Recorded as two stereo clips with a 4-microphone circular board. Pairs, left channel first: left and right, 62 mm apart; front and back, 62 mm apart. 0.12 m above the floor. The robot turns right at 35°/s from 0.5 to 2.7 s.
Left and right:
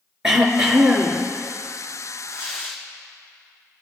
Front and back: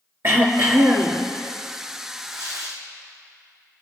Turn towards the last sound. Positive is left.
turn(degrees=-150)